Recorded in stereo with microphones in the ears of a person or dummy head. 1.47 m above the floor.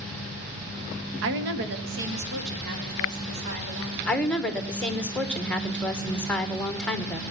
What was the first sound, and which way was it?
A woman speaking, 70° right (ahead or behind).